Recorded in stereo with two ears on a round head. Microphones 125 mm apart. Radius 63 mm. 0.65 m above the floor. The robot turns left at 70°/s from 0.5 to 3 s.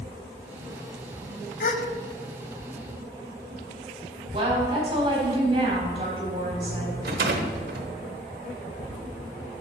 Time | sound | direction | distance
1.6 | a gasp | 60° left (ahead or behind) | 0.7 m
4.3 | a woman speaking | 40° right (ahead or behind) | 4 m
7.0 | a rattle | 70° right (ahead or behind) | 1.0 m